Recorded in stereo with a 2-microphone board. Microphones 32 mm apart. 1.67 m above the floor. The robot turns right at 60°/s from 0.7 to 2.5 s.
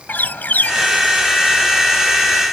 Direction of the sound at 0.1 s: 60° left (ahead or behind).